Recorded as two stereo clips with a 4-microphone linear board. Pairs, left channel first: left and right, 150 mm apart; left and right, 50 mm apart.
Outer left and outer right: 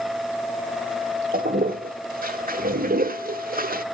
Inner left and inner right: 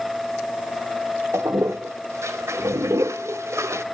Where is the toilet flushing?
70° right (ahead or behind), 1.1 m.